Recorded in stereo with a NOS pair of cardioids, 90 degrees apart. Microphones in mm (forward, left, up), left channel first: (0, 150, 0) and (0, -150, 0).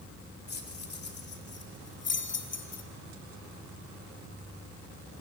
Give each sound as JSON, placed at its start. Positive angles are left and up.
{"t": 0.5, "sound": "keys jangling", "azimuth_deg": 35, "distance_m": 3.0}